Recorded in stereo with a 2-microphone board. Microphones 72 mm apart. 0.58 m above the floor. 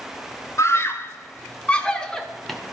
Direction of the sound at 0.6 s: 40° left (ahead or behind).